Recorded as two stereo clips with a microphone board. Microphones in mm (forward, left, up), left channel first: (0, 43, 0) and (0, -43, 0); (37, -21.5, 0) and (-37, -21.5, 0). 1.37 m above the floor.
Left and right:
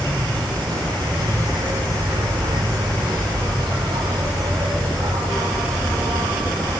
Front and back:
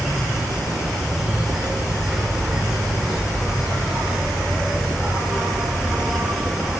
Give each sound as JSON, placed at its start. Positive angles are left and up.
{"t": 0.0, "sound": "an insect", "azimuth_deg": -95, "distance_m": 5.0}